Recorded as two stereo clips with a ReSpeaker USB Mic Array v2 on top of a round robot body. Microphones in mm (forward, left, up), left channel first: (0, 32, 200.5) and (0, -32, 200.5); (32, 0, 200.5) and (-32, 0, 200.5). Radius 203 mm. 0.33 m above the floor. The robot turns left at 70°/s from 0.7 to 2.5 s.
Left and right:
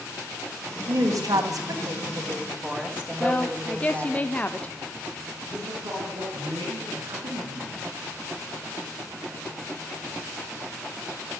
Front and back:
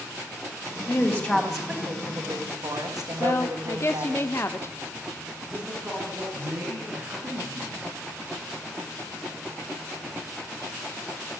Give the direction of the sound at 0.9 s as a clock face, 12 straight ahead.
1 o'clock.